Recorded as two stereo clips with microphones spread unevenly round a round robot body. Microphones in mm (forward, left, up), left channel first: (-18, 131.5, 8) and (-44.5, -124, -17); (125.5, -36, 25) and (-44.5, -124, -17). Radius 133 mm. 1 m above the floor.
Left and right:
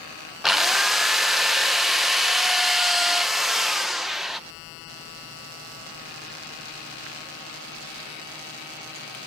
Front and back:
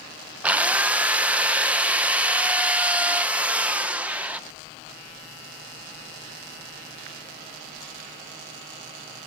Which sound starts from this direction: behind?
A drill, at 0.4 s.